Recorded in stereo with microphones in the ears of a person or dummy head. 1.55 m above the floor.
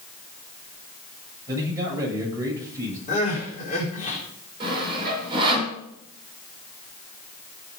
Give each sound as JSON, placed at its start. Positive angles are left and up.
{"t": 1.5, "sound": "a man speaking", "side_deg": -20, "distance_m": 8.5}
{"t": 3.1, "sound": "crying", "side_deg": 40, "distance_m": 4.5}
{"t": 4.6, "sound": "sawing", "side_deg": -30, "distance_m": 7.5}